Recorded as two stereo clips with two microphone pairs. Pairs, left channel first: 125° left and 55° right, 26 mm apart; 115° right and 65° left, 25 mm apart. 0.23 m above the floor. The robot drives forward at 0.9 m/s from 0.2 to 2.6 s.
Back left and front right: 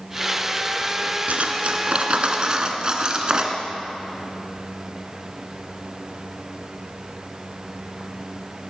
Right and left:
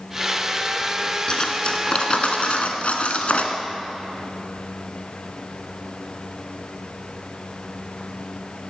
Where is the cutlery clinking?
60° right, 1.8 m; by 3.6 s 105° right, 1.7 m.